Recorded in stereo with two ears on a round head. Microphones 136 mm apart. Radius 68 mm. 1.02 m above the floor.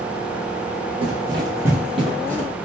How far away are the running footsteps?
About 1.4 m.